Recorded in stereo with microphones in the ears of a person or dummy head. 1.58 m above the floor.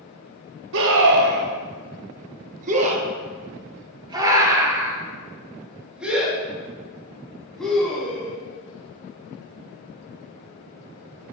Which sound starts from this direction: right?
A scream, at 0.7 s.